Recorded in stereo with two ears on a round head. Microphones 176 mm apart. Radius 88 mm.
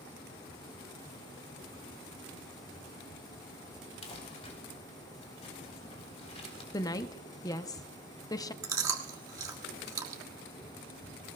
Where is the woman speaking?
20° left (ahead or behind), 0.5 m.